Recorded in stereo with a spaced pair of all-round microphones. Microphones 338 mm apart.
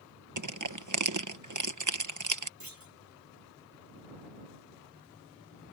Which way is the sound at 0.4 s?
60° right (ahead or behind).